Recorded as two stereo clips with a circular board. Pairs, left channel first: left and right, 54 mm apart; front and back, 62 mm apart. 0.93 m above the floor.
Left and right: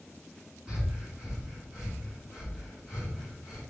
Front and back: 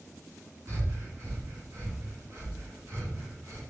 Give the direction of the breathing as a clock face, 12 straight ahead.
5 o'clock.